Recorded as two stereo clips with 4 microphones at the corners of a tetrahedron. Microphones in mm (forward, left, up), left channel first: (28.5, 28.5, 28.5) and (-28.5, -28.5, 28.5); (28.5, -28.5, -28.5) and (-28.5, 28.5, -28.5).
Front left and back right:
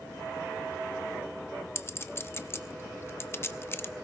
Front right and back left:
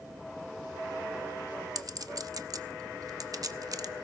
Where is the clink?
100° left, 0.8 m.